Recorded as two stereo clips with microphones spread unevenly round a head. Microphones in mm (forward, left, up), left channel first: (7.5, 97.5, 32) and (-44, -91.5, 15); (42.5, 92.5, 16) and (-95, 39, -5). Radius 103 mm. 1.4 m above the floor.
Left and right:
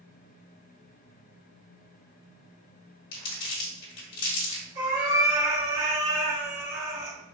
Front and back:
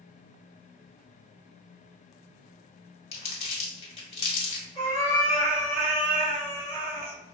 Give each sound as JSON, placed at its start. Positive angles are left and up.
{"t": 3.1, "sound": "crumpling", "azimuth_deg": 35, "distance_m": 1.8}
{"t": 4.8, "sound": "a cat meowing", "azimuth_deg": -80, "distance_m": 2.0}